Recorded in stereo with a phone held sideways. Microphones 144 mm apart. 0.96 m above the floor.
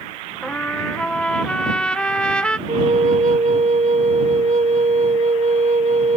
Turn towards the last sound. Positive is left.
turn(degrees=-55)  # may be behind; listen again after turning